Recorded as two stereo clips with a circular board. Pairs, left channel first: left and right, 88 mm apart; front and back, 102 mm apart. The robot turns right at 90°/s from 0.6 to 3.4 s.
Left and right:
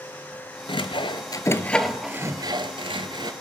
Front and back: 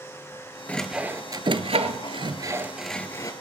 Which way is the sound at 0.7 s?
75° left.